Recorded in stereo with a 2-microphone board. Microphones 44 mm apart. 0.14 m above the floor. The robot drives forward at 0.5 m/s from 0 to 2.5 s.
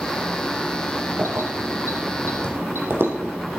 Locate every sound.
1.2 s keys jangling: 75° right (ahead or behind), 3 m; by 3.3 s 65° right (ahead or behind), 3.5 m